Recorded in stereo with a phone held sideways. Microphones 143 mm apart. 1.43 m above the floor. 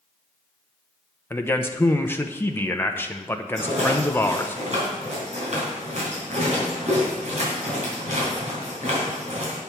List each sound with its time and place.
1.3 s a man speaking: 15° left (ahead or behind), 0.7 m
3.6 s a rattle: 55° right (ahead or behind), 3.5 m